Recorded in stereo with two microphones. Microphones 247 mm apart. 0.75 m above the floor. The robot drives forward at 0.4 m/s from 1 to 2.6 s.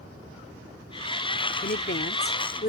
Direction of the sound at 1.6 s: 45° left (ahead or behind).